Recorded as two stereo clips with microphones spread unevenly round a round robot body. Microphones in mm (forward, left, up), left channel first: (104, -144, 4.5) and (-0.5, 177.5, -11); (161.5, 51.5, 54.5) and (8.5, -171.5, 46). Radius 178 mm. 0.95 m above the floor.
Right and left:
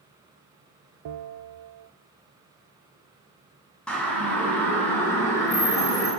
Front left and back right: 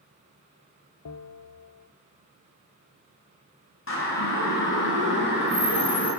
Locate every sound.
1.1 s a bell: 80° left, 0.8 m
3.9 s a siren: 15° left, 8 m; by 6.1 s 10° left, 11 m